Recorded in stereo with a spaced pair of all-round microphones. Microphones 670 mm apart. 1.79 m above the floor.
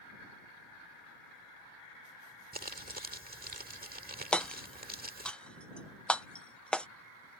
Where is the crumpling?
15° right (ahead or behind).